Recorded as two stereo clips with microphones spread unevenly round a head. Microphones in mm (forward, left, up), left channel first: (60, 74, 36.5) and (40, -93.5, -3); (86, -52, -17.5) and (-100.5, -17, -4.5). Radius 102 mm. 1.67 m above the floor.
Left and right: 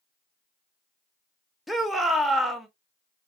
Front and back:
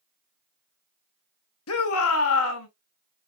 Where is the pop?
No pop in this recording.